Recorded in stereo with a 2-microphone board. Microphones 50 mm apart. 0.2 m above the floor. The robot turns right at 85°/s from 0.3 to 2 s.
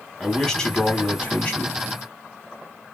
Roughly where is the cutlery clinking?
No cutlery clinking in this recording.